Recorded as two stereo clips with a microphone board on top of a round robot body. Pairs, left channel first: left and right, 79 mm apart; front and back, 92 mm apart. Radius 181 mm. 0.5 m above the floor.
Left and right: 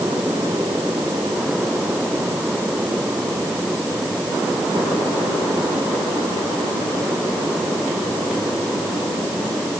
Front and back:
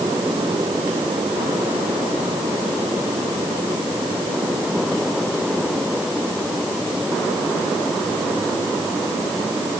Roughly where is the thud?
No thud in this recording.